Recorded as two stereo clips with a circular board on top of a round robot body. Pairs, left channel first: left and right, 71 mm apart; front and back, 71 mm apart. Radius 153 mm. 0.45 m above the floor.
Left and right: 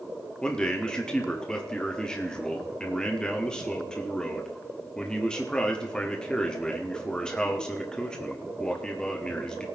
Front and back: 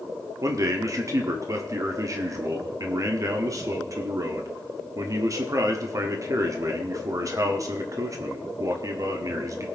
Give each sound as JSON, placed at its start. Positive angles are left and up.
{"t": 0.4, "sound": "a man speaking", "azimuth_deg": 165, "distance_m": 1.8}